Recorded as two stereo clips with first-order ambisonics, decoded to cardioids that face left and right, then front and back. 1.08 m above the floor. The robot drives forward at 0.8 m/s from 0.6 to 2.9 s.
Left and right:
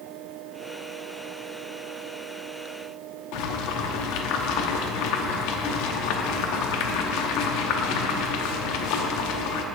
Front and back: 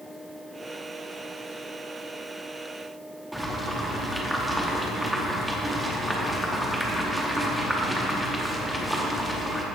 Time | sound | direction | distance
3.3 | boiling | 95° left | 0.8 m